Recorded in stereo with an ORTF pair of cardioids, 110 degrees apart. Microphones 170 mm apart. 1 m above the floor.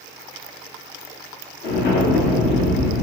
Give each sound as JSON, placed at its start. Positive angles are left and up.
{"t": 1.6, "sound": "an explosion", "azimuth_deg": 65, "distance_m": 0.9}